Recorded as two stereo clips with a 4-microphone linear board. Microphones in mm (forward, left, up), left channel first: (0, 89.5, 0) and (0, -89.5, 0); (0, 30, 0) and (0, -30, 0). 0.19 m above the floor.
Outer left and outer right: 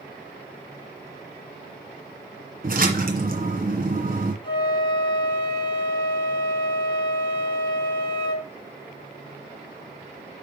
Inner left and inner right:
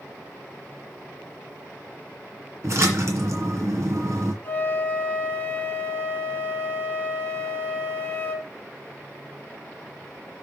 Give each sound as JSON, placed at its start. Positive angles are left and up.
{"t": 2.6, "sound": "a splash", "side_deg": -50, "distance_m": 2.0}
{"t": 4.4, "sound": "a flute", "side_deg": 25, "distance_m": 2.5}